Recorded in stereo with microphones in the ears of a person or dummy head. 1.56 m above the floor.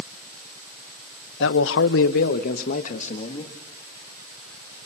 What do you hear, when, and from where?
1.4 s a man speaking: 75° left (ahead or behind), 1.5 m; by 3.5 s 35° left (ahead or behind), 3 m